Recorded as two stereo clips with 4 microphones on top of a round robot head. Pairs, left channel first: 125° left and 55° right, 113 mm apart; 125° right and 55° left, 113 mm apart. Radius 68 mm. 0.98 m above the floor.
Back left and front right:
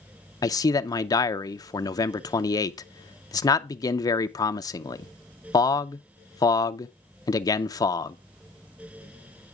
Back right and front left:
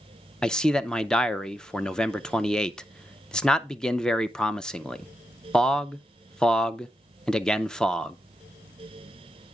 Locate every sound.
0.4 s a man speaking: 155° left, 0.5 m